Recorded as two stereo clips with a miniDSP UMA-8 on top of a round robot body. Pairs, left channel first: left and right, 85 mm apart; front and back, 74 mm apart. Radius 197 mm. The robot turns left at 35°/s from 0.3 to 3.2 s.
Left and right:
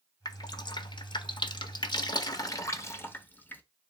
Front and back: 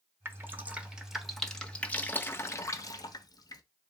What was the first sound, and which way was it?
Dripping, 125° left.